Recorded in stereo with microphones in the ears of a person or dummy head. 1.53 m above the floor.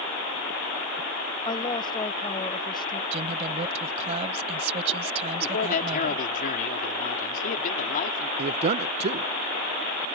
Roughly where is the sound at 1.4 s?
Left.